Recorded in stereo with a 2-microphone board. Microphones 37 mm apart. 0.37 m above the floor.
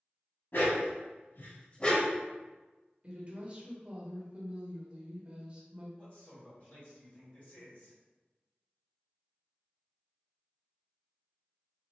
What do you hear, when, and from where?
0.5 s a dog barking: 70° left (ahead or behind), 1.1 m; by 2.2 s 5° left (ahead or behind), 0.8 m
3.0 s a woman speaking: 30° right (ahead or behind), 0.9 m
6.0 s a man speaking: 40° left (ahead or behind), 1.7 m